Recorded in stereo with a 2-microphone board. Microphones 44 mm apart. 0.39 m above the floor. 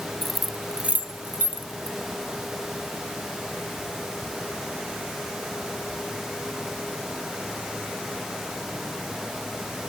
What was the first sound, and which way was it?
Keys jangling, 10° left (ahead or behind).